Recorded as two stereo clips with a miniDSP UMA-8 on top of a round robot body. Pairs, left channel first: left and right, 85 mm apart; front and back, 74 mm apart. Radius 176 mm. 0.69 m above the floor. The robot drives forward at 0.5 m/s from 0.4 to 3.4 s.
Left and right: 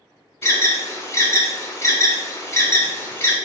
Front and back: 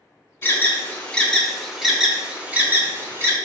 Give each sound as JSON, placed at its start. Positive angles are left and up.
{"t": 0.4, "sound": "an alarm", "azimuth_deg": 45, "distance_m": 1.4}